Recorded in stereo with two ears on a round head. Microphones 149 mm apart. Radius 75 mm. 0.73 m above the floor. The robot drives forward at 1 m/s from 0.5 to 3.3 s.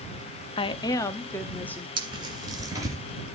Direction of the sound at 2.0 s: 30° right (ahead or behind).